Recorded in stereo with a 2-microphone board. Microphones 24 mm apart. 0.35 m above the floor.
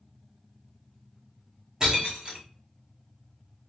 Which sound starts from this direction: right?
Breaking glass, at 1.8 s.